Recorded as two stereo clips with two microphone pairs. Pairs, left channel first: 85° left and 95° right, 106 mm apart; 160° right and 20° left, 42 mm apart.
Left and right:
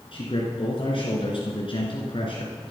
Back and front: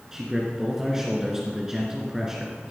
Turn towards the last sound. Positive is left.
turn(degrees=95)